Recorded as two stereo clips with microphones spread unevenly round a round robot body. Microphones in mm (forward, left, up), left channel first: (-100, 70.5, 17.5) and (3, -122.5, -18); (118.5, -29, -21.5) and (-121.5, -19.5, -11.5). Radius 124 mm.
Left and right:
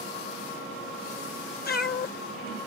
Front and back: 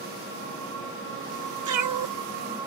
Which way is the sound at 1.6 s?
165° left.